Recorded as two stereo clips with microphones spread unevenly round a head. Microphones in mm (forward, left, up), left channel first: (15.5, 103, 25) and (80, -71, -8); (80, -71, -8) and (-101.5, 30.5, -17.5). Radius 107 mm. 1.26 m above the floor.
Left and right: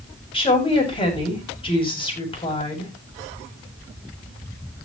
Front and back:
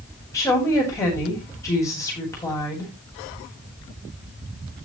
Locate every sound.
0.3 s a woman speaking: 50° left, 9 m